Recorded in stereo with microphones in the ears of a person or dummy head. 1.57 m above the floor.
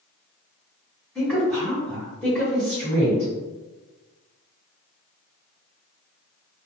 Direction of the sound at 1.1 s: 5° left (ahead or behind).